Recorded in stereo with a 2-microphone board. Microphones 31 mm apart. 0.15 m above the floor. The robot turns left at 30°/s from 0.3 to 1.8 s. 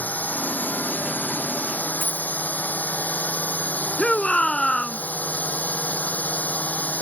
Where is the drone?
65° left (ahead or behind); by 7.0 s 55° left (ahead or behind).